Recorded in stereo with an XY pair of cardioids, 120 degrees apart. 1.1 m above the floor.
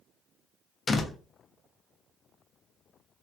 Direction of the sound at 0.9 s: 30° left.